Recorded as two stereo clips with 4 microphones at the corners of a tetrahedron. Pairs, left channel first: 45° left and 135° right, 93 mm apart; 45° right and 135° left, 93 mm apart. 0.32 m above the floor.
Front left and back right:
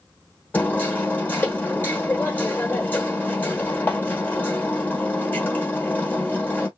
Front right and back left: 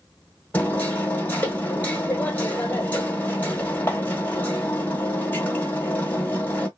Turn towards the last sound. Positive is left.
turn(degrees=0)